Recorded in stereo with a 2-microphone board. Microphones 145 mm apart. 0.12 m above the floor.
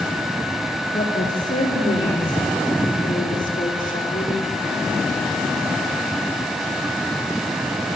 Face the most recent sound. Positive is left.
turn(degrees=65)  # may be behind; listen again after turning